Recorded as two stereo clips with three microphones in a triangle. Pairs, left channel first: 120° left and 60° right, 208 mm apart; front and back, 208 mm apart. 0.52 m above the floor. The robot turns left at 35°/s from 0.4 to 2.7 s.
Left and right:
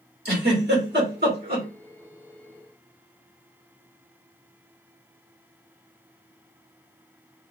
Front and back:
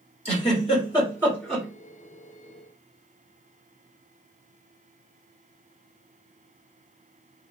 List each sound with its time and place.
0.2 s a giggle: 45° right, 2 m; by 1.6 s 90° right, 2 m